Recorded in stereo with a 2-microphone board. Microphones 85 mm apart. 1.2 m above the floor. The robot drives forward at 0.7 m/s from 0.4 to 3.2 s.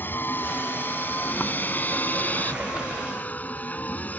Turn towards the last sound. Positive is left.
turn(degrees=20)  # may be behind; listen again after turning